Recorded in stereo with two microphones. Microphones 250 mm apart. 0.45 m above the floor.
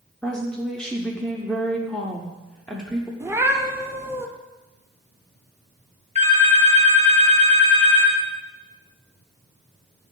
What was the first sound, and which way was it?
A woman speaking, 5° left (ahead or behind).